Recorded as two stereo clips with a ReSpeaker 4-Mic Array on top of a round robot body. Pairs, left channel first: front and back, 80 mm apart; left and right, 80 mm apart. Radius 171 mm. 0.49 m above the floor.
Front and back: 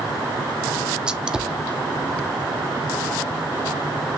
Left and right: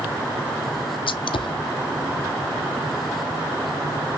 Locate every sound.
1.1 s a gunshot: 100° left, 0.5 m